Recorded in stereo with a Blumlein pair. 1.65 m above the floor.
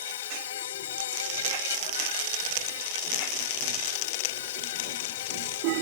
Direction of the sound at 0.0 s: 60° left.